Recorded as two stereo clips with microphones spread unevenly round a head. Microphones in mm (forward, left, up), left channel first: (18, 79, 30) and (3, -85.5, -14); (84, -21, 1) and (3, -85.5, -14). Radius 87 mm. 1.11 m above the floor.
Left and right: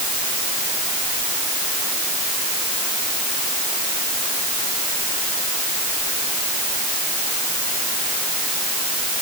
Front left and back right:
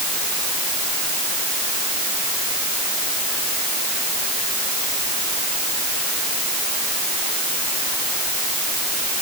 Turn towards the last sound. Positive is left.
No sound to turn to.